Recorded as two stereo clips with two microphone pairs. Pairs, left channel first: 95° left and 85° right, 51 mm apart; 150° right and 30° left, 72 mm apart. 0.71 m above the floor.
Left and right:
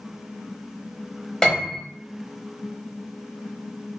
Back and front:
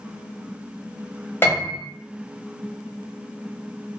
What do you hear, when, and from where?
1.4 s a piano: 175° left, 1.0 m